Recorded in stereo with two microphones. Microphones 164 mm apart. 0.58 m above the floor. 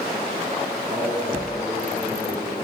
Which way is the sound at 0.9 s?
40° right (ahead or behind).